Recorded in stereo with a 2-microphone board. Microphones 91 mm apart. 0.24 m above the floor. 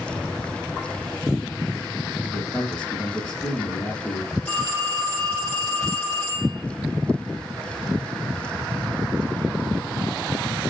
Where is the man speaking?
5° left (ahead or behind), 5 m.